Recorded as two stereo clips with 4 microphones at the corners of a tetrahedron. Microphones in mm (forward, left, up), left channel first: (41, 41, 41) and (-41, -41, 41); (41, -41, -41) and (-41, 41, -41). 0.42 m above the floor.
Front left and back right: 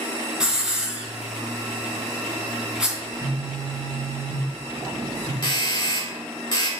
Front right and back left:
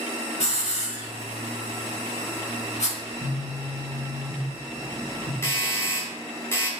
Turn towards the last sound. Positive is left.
turn(degrees=15)